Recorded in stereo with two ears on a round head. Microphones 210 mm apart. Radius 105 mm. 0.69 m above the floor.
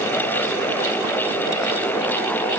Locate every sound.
Only background noise.